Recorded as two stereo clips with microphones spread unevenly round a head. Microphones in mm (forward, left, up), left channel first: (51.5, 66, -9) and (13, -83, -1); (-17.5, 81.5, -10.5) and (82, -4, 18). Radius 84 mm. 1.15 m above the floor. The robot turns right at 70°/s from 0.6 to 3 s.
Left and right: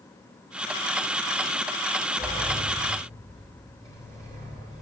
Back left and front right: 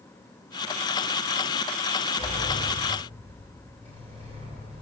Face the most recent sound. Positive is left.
turn(degrees=-160)